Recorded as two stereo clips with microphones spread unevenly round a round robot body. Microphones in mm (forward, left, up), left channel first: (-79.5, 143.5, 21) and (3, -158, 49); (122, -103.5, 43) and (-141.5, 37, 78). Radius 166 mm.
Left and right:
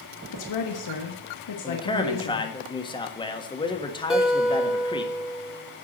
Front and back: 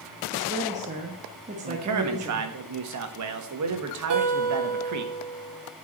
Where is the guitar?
165° right, 1.8 m.